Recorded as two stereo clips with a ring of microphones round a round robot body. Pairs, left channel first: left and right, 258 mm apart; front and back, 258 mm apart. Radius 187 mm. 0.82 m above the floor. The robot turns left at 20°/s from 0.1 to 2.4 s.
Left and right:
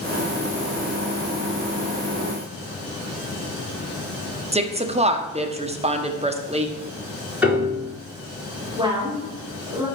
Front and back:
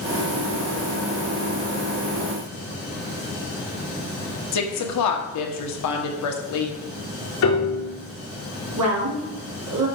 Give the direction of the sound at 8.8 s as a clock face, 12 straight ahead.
6 o'clock.